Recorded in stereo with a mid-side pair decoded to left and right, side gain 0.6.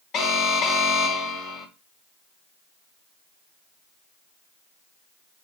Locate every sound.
0.1 s an alarm: 50° left, 1.5 m